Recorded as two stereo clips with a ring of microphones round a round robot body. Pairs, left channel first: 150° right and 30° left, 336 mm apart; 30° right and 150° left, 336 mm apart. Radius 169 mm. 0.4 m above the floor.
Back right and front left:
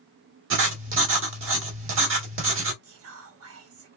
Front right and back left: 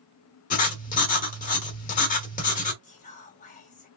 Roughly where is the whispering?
Ahead left.